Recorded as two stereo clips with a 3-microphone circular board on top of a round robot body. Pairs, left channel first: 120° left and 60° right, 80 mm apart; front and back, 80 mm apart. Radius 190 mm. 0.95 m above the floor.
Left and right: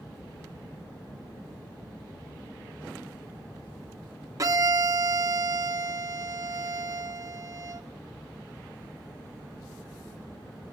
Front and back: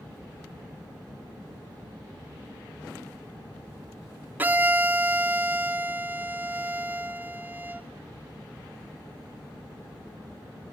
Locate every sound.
4.4 s a violin: 115° right, 0.9 m